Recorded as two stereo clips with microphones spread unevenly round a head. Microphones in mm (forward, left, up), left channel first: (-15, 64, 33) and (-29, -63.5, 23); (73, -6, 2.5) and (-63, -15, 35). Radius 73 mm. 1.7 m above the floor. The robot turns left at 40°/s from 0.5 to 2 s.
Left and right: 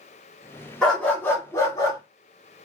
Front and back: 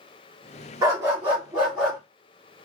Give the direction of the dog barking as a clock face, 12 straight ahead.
7 o'clock.